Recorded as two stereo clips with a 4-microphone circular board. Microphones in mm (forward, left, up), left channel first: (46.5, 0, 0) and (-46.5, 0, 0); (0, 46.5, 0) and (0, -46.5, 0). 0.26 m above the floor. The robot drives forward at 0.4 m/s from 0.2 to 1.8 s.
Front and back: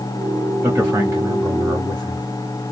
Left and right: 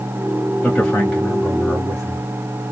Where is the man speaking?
150° left, 1.0 m; by 2.3 s 165° left, 1.2 m.